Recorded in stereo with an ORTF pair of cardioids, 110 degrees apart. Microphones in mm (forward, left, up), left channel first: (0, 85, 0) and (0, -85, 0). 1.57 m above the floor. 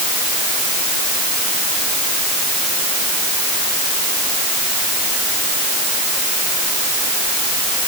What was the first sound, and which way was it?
Only background noise.